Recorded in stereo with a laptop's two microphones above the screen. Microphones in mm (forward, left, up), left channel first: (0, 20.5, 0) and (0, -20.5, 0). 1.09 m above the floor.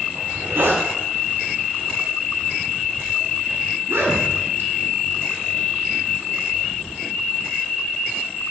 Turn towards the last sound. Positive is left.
turn(degrees=-65)  # may be behind; listen again after turning